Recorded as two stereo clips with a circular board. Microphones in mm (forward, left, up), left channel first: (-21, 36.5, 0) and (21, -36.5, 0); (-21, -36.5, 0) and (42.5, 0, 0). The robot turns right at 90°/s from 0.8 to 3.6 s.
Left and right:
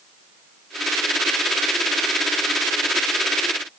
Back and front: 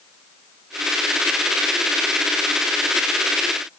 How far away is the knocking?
No knocking in this recording.